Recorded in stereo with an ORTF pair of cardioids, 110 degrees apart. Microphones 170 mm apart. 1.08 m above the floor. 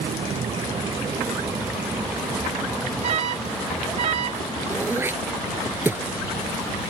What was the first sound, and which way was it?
A vehicle, 40° right.